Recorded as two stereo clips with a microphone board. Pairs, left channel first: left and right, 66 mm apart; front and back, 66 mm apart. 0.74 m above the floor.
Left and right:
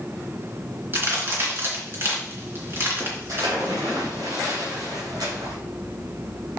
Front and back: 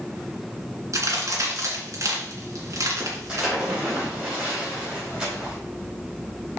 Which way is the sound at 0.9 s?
145° right.